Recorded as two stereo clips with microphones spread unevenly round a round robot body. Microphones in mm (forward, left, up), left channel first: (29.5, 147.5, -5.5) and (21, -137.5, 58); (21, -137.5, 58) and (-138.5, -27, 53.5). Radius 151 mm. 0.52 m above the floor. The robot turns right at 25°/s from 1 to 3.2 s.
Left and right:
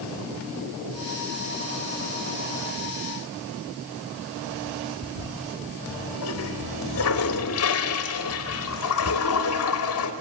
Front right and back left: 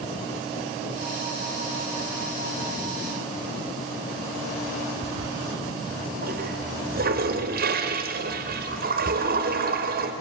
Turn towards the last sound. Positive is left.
turn(degrees=105)